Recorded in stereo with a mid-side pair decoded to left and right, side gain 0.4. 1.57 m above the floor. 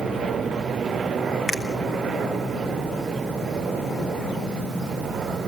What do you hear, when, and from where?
1.5 s a finger snap: 35° left, 3 m